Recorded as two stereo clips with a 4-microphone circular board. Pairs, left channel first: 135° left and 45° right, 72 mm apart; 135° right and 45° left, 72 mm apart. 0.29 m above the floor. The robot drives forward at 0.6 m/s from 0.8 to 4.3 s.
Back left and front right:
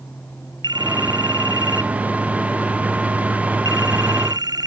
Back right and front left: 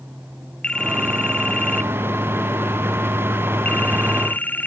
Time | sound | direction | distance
0.6 | a phone ringing | 60° right | ?